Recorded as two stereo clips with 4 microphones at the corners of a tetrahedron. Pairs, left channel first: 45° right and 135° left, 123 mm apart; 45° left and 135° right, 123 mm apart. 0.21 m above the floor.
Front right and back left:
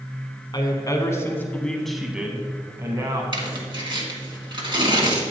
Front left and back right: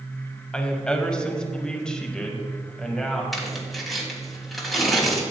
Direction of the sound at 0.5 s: 35° right.